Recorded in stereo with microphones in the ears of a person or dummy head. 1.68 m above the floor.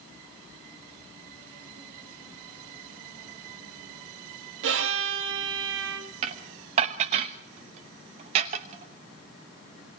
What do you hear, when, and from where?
4.6 s a violin: 75° right (ahead or behind), 2.5 m
6.2 s dishes clattering: 30° right (ahead or behind), 1.1 m